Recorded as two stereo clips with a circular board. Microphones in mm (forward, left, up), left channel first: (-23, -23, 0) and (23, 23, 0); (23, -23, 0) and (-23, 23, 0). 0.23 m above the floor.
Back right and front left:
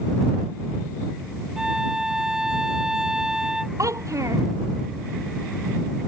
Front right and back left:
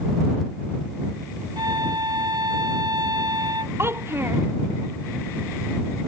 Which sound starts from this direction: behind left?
A violin, at 1.6 s.